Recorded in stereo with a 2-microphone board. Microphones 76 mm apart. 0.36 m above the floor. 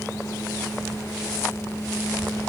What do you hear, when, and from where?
Only background noise.